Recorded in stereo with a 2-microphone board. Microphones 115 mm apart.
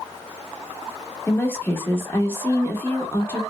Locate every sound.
1.3 s a woman speaking: 20° left (ahead or behind), 0.8 m